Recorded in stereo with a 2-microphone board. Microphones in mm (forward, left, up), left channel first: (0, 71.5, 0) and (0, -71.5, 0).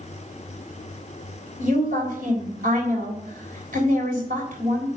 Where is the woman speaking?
75° right (ahead or behind), 3.5 m.